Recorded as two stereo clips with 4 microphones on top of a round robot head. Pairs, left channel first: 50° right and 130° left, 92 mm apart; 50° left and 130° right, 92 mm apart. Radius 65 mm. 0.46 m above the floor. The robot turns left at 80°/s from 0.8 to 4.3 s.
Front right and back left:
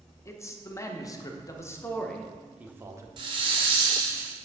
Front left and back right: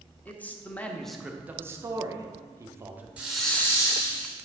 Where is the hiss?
155° left, 1.3 m; by 4.3 s 65° left, 1.3 m.